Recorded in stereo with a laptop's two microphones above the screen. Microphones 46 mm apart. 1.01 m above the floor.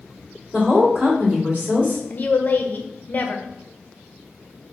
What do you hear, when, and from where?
0.5 s a woman speaking: 15° right (ahead or behind), 2 m
2.1 s a woman speaking: 40° left (ahead or behind), 0.6 m